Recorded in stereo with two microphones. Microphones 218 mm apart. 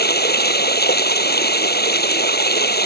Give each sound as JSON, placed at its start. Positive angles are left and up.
{"t": 0.0, "sound": "running water", "side_deg": 45}